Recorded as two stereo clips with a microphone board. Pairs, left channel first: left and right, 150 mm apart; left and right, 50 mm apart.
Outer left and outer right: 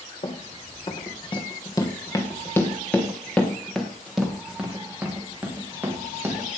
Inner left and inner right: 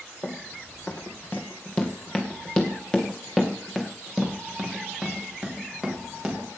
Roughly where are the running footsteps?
Left.